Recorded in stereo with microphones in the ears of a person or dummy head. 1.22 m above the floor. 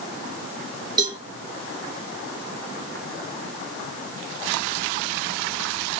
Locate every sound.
1.0 s a cowbell: 25° right (ahead or behind), 3 m